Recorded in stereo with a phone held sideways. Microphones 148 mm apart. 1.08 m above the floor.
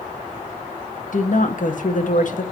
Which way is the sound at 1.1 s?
60° left (ahead or behind).